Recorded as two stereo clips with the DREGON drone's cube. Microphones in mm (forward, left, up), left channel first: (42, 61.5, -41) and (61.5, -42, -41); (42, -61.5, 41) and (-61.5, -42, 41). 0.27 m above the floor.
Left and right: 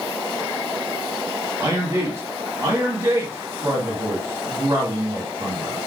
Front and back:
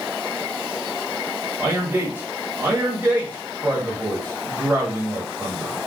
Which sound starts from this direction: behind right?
A man speaking, at 1.6 s.